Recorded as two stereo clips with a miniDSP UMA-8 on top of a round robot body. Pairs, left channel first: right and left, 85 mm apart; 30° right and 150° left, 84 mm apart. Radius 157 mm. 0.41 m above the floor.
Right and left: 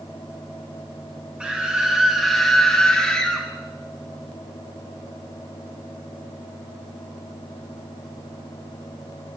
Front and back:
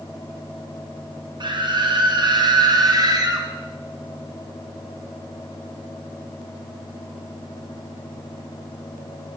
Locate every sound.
1.4 s a scream: 170° left, 3 m; by 3.5 s 170° right, 3.5 m